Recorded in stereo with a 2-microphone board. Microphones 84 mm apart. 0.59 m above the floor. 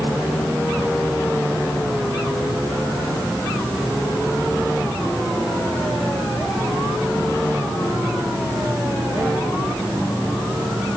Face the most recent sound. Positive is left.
No sound to turn to.